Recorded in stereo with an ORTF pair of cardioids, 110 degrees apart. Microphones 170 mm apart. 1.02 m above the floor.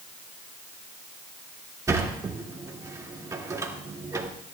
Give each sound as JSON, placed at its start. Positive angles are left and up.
{"t": 1.9, "sound": "a sliding door", "azimuth_deg": -20, "distance_m": 2.0}